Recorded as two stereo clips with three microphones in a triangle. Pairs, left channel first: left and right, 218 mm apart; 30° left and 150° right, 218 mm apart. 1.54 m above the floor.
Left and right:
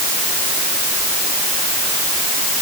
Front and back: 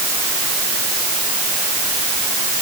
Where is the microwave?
I don't hear a microwave.